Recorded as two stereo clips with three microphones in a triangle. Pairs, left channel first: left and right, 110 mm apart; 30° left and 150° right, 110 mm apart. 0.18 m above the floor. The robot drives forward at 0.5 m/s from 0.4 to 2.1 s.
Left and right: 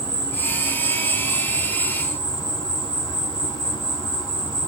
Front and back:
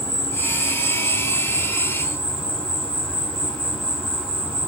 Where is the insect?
75° left, 1.9 m; by 4.7 s 115° left, 2.0 m.